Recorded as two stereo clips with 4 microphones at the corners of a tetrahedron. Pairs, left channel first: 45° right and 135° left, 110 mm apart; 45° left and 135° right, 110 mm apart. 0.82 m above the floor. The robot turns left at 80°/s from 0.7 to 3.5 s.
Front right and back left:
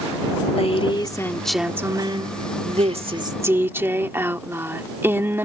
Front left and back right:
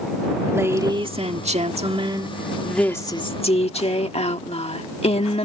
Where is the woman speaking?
70° right; by 5.5 s 65° left.